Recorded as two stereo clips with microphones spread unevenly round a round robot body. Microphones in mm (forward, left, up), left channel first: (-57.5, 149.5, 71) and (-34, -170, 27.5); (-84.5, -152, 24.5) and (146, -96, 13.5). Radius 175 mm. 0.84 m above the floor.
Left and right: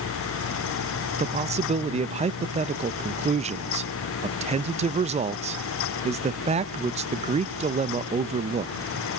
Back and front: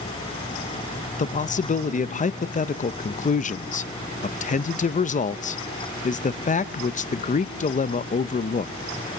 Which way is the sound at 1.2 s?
130° right.